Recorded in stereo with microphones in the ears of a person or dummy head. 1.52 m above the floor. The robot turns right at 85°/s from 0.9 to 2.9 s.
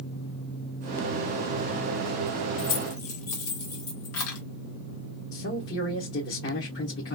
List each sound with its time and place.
2.6 s keys jangling: 60° left (ahead or behind), 0.8 m; by 4.4 s 65° left (ahead or behind), 0.8 m
5.3 s a man speaking: 60° left (ahead or behind), 1.1 m